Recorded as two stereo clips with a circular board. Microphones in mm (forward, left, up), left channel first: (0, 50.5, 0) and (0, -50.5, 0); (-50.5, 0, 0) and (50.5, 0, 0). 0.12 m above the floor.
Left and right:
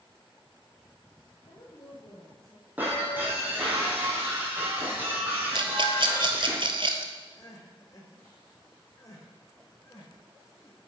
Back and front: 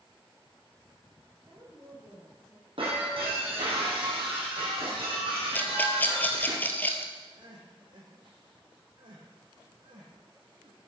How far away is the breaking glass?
About 3.5 m.